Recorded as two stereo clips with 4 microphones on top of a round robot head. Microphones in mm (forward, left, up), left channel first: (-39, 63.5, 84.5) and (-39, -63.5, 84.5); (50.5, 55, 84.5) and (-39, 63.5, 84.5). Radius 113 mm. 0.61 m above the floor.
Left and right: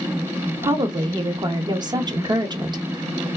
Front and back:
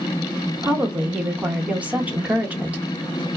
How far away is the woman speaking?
About 0.8 m.